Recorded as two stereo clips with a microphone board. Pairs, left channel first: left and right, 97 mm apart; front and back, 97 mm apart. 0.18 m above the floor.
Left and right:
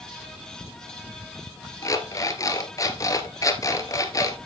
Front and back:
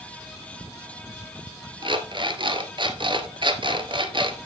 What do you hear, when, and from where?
1.8 s an alarm clock: 145° left, 1.5 m